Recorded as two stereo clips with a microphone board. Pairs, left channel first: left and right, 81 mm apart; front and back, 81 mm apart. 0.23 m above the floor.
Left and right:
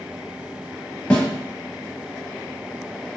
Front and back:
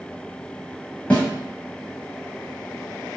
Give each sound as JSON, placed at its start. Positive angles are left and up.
{"t": 1.1, "sound": "a snare drum", "azimuth_deg": 55, "distance_m": 1.1}